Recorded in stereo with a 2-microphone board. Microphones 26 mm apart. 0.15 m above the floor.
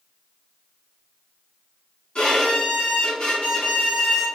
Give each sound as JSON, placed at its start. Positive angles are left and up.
{"t": 2.1, "sound": "a violin", "side_deg": 35, "distance_m": 1.9}